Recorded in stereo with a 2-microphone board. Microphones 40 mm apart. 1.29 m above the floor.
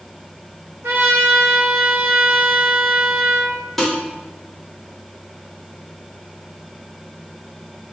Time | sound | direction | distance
0.8 | a trumpet | 75° right (ahead or behind) | 1.1 m
3.8 | dishes clattering | 5° left (ahead or behind) | 2.5 m